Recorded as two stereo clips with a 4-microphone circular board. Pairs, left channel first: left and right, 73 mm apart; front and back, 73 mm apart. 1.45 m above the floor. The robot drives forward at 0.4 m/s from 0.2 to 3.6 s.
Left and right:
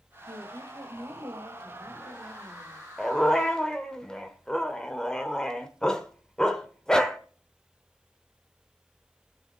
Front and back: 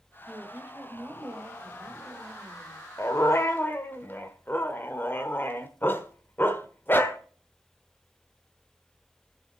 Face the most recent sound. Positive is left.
turn(degrees=20)